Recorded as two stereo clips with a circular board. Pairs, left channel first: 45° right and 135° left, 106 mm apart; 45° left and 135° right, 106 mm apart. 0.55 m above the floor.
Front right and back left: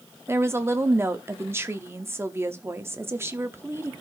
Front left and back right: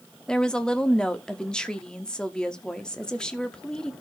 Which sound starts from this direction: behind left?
A woman speaking, at 0.3 s.